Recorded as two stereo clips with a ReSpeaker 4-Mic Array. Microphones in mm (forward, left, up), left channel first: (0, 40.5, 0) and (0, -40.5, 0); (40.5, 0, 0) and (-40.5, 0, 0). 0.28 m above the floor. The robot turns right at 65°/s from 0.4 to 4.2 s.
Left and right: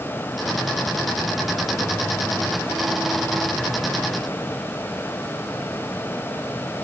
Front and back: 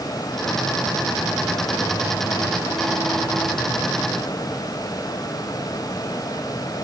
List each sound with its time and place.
Only background noise.